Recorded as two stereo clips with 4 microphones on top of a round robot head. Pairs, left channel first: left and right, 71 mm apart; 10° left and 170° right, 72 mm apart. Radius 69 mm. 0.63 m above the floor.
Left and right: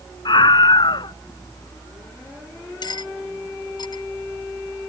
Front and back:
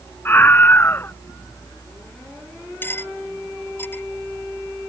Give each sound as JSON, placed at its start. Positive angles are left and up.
{"t": 0.2, "sound": "a scream", "azimuth_deg": 70}
{"t": 2.8, "sound": "cutlery clinking", "azimuth_deg": 70}